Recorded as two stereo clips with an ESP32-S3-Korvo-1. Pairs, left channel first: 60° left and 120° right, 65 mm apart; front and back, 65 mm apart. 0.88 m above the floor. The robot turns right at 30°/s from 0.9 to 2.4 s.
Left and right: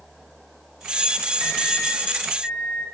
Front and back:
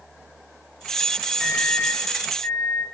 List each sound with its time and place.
1.4 s a microwave: 95° right, 1.4 m; by 2.8 s 65° right, 1.4 m